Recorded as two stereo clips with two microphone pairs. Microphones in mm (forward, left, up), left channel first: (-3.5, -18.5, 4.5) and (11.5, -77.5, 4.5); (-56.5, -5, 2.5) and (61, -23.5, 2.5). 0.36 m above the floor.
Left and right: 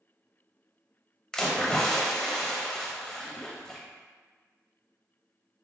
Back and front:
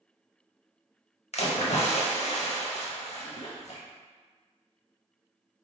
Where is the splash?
175° right, 0.6 m.